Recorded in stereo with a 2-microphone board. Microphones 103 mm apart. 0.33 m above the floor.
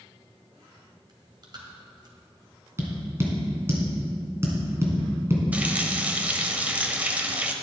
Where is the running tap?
15° right (ahead or behind), 0.9 m.